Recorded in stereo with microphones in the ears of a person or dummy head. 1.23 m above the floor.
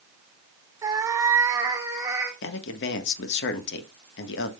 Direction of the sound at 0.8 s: 15° right (ahead or behind).